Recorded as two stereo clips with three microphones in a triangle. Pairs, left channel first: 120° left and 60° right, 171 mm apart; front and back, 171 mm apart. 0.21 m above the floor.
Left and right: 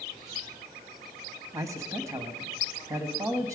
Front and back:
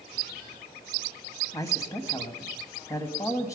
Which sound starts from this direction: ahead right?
A man speaking, at 1.5 s.